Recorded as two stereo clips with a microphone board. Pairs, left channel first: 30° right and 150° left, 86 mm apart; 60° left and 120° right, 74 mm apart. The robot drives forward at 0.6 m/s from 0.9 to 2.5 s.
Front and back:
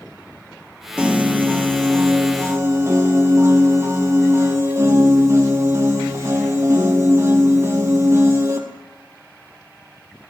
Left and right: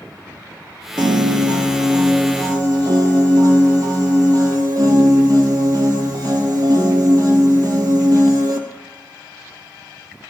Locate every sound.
1.0 s a piano: 135° right, 1.3 m; by 8.6 s 155° right, 2.0 m